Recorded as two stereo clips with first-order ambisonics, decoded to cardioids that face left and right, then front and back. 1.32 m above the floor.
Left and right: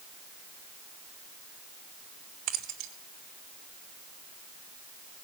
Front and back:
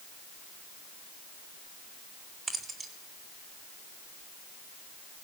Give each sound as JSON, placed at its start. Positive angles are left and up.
{"t": 2.5, "sound": "keys jangling", "azimuth_deg": -110, "distance_m": 3.0}